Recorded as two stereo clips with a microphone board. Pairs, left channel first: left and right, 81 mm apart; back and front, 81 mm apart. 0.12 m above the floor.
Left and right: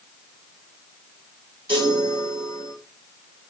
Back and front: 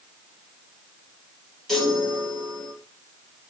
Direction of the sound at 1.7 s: 95° right.